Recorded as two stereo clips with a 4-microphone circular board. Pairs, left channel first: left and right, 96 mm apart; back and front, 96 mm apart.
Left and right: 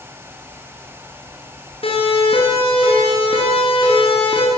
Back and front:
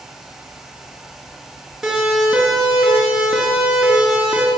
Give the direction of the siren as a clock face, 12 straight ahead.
9 o'clock.